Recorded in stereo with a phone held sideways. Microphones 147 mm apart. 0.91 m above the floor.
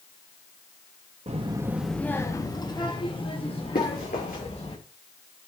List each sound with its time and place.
1.3 s a child speaking: 50° right (ahead or behind), 0.8 m; by 4.8 s 45° left (ahead or behind), 4.5 m
3.8 s running footsteps: 80° left, 6 m